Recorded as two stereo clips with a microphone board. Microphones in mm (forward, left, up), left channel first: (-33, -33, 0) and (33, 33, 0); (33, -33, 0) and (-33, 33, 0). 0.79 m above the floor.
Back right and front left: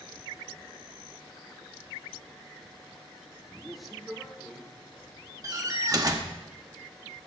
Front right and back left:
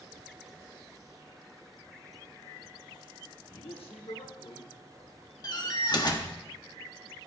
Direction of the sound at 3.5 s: 40° right.